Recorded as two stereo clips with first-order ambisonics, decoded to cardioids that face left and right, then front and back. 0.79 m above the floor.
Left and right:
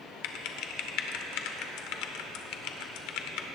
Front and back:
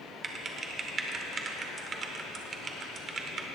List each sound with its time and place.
0.2 s typing on a keyboard: 115° left, 1.0 m